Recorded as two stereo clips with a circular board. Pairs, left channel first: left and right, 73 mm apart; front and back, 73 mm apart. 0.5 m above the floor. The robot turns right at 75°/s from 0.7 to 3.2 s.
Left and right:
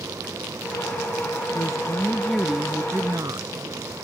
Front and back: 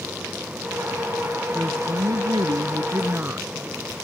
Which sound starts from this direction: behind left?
A woman speaking, at 1.6 s.